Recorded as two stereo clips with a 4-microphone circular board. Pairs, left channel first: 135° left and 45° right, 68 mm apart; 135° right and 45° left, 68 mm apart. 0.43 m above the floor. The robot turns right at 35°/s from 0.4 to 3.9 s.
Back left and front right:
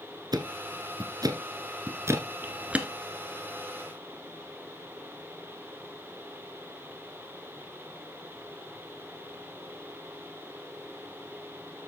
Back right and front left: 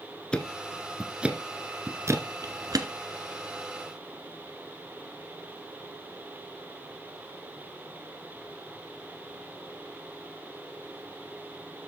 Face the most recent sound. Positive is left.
turn(degrees=65)